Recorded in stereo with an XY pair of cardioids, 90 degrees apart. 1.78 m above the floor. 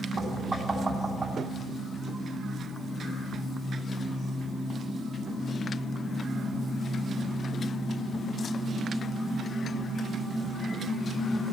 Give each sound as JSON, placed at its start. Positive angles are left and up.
{"t": 0.2, "sound": "knocking", "azimuth_deg": -30, "distance_m": 4.5}